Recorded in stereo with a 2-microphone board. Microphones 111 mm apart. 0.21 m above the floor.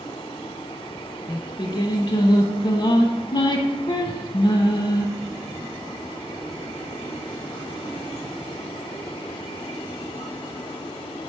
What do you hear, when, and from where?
1.3 s singing: 45° left (ahead or behind), 0.5 m